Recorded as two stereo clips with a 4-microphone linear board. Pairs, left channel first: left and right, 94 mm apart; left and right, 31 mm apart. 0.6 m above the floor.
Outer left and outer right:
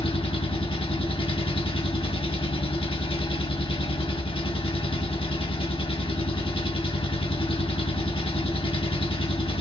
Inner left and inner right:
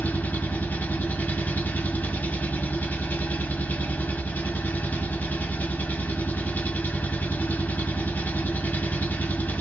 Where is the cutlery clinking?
No cutlery clinking in this recording.